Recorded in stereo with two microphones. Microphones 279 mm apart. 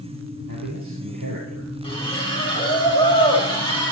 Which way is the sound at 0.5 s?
75° right (ahead or behind).